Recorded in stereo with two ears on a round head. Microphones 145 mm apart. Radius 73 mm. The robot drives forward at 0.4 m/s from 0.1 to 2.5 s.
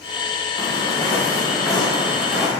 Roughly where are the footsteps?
Left.